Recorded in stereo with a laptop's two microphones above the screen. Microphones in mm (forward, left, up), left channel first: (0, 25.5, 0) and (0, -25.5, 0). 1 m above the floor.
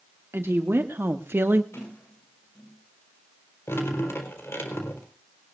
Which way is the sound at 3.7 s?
60° left (ahead or behind).